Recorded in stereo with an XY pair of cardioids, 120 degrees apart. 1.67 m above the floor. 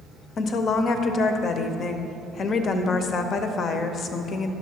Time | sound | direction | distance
0.4 | a woman speaking | 45° left | 0.7 m